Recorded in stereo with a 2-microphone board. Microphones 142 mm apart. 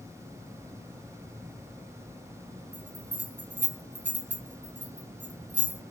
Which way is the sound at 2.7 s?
15° right (ahead or behind).